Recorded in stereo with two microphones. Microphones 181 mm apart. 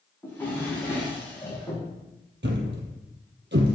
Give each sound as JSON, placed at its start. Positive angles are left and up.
{"t": 0.2, "sound": "a drawer", "side_deg": 15, "distance_m": 5.0}
{"t": 2.4, "sound": "a thud", "side_deg": -75, "distance_m": 1.6}